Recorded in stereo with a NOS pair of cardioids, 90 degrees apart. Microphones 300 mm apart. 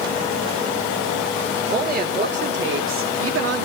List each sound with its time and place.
1.7 s a woman speaking: 30° right, 3.5 m; by 3.6 s 55° right, 2 m